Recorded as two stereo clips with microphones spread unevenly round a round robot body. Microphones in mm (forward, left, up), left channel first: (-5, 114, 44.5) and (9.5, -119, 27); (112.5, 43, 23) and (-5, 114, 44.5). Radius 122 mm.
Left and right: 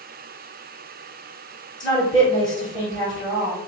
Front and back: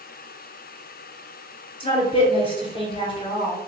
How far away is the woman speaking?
About 2.5 m.